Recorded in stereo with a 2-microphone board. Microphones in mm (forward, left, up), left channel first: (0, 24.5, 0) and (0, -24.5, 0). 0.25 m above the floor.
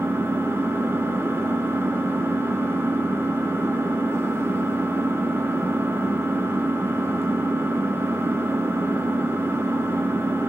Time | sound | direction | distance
0.0 | an engine running | 65° right (ahead or behind) | 0.9 m